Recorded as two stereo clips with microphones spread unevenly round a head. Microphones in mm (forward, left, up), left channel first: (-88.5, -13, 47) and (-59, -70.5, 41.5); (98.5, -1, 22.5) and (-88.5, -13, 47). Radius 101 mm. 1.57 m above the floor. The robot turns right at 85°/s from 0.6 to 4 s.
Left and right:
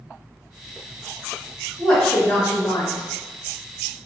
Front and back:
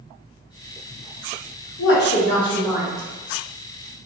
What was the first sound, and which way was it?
A woman speaking, 15° left.